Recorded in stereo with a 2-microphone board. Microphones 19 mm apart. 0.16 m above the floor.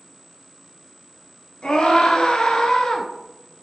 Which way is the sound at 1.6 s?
55° left (ahead or behind).